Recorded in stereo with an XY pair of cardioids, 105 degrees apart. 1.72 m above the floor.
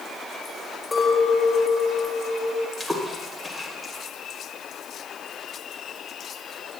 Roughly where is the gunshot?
No gunshot in this recording.